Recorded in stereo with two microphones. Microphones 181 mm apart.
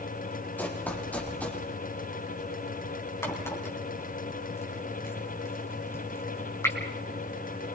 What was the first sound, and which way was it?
Running footsteps, 10° left (ahead or behind).